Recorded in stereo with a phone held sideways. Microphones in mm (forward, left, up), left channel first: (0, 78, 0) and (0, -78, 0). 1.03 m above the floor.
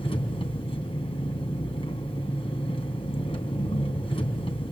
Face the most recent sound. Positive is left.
turn(degrees=40)  # may be behind; listen again after turning